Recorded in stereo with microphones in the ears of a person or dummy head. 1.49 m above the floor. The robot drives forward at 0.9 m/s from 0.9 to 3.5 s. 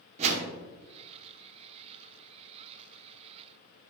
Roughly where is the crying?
No crying in this recording.